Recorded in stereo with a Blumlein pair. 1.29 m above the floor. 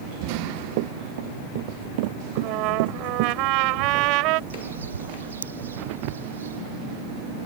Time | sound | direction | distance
0.3 | running footsteps | 45° right | ?
2.4 | a trumpet | 40° right | ?
4.5 | a bird | 65° right | ?